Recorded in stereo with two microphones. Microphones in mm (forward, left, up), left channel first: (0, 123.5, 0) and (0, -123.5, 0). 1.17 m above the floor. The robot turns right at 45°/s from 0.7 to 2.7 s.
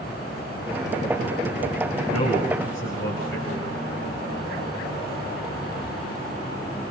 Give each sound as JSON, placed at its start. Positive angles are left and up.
{"t": 2.1, "sound": "a man speaking", "side_deg": 80, "distance_m": 5.5}